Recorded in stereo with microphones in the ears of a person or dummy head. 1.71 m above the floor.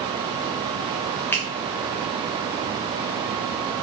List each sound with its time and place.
1.3 s a finger snap: 10° left (ahead or behind), 0.7 m